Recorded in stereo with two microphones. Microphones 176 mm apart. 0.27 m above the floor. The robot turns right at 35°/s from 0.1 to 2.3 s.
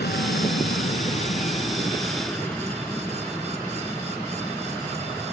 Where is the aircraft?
95° left; by 5.3 s 175° left.